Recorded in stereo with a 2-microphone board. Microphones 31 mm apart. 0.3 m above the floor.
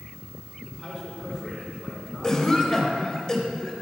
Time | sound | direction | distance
0.7 | a man speaking | 15° right (ahead or behind) | 2.5 m
2.2 | a cough | 20° left (ahead or behind) | 1.0 m